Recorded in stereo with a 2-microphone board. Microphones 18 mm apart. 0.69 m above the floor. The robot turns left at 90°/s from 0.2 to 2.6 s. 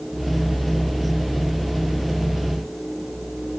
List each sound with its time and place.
Only background noise.